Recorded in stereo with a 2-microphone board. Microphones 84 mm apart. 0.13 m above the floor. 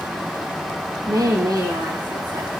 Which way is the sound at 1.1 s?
60° right (ahead or behind).